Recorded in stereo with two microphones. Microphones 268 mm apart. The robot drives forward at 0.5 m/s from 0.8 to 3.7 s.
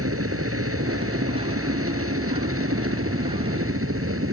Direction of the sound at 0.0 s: 55° right (ahead or behind).